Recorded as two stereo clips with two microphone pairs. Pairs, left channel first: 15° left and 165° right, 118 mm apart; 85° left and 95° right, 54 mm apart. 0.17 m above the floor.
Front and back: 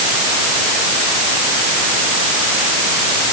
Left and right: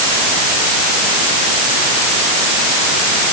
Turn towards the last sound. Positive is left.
No sound to turn to.